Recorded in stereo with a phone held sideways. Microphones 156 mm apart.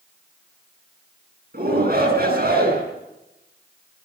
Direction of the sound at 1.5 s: 70° right (ahead or behind).